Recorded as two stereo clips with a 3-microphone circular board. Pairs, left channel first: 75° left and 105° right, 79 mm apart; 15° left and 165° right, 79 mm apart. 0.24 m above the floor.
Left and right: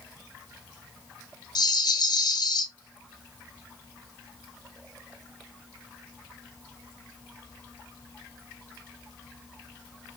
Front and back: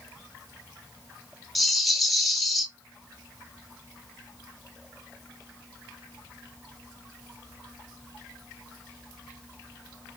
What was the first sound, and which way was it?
A rattle, 105° left.